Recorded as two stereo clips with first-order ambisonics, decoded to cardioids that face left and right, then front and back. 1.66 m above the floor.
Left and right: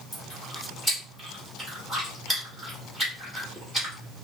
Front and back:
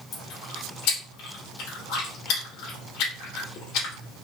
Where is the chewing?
5° left, 2.5 m.